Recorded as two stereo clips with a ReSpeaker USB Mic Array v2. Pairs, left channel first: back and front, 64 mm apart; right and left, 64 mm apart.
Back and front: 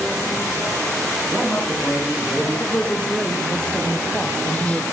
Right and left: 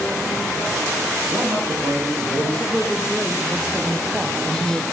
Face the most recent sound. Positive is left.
turn(degrees=145)